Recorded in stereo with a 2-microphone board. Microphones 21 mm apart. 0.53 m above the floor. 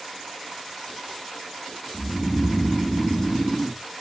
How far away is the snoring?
About 1.0 m.